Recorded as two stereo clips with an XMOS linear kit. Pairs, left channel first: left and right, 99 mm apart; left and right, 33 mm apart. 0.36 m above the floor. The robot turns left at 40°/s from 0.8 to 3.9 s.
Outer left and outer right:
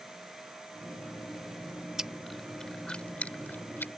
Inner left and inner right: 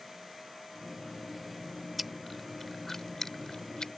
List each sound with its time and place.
2.0 s chewing: 5° right (ahead or behind); by 3.9 s 20° left (ahead or behind)